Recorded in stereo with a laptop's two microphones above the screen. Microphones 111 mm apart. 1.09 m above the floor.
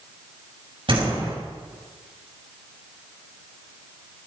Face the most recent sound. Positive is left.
turn(degrees=-50)  # may be behind; listen again after turning